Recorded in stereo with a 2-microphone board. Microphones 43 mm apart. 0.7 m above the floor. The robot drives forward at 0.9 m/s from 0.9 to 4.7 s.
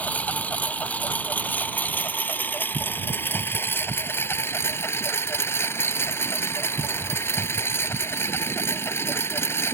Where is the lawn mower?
35° left (ahead or behind); by 9.7 s 70° left (ahead or behind).